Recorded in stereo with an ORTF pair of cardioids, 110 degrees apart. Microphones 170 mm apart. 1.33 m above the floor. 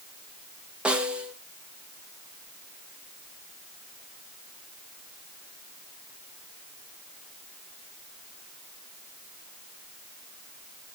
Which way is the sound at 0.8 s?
5° right.